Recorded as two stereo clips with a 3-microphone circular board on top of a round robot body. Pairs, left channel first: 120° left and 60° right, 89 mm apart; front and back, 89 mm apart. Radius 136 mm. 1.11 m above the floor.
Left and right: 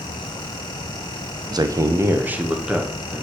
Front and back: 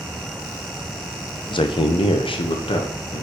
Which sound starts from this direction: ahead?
A man speaking, at 1.5 s.